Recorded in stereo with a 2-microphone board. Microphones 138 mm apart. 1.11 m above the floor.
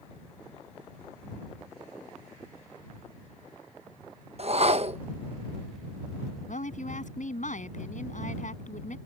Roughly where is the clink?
I don't hear a clink.